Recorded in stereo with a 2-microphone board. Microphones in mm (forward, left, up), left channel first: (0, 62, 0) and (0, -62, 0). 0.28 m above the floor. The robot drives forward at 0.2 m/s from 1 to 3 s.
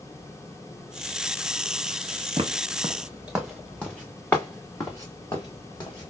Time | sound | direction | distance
2.4 | footsteps | 50° right (ahead or behind) | 0.7 m